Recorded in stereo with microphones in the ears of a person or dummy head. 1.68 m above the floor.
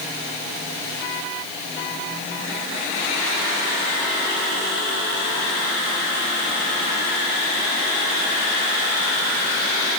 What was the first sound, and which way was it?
Only background noise.